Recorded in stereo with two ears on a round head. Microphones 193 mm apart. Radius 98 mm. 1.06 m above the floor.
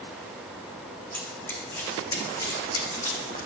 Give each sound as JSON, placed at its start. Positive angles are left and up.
{"t": 1.1, "sound": "running footsteps", "side_deg": 10, "distance_m": 3.5}